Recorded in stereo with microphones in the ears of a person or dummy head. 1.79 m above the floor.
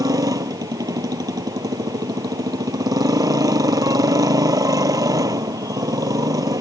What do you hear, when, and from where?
0.0 s a motorcycle: 20° right (ahead or behind)